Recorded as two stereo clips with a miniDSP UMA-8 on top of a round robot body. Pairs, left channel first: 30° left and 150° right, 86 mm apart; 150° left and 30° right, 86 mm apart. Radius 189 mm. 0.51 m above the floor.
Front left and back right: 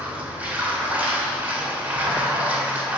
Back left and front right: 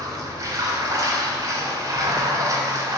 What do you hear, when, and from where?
0.0 s running water: 80° right, 1.9 m